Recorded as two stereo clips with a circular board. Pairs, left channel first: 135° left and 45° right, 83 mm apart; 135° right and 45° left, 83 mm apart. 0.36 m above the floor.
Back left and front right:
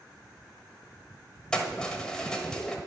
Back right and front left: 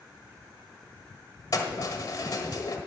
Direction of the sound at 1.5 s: 150° right.